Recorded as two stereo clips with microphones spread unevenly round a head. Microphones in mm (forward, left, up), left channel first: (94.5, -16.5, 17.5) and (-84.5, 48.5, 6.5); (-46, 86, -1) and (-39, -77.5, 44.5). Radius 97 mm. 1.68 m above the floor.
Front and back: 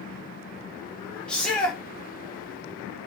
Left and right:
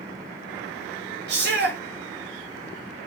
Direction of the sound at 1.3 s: 105° right.